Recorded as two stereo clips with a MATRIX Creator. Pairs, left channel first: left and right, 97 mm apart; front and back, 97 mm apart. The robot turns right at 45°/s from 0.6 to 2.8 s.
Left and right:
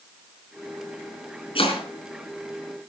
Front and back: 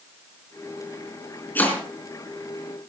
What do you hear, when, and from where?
1.6 s chopping: 70° left, 4.5 m; by 1.9 s 85° left, 4.5 m